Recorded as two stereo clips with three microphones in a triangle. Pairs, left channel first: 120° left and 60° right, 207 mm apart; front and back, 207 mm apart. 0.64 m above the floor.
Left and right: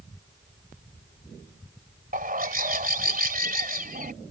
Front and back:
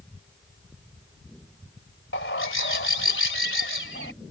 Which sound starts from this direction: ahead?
A bird, at 2.1 s.